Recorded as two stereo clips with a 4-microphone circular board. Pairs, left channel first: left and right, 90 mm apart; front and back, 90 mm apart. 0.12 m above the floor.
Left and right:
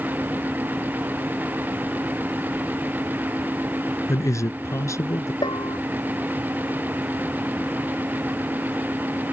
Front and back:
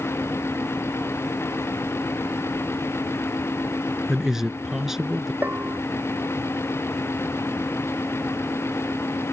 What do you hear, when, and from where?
4.1 s a man speaking: 100° left
5.4 s a bell: 110° left